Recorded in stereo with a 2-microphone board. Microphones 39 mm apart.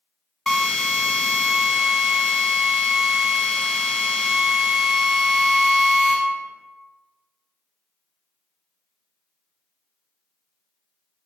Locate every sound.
0.5 s a drill: 5° left (ahead or behind), 1.5 m